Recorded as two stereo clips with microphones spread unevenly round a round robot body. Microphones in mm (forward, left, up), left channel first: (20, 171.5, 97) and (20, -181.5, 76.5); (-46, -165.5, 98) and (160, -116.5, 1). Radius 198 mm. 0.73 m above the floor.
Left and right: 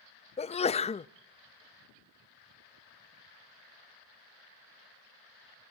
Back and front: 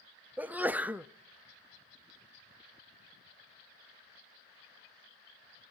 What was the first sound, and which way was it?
A sneeze, 25° left.